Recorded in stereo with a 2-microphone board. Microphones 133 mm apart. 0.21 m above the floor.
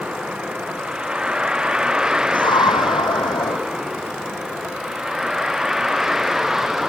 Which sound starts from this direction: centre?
A vehicle, at 0.0 s.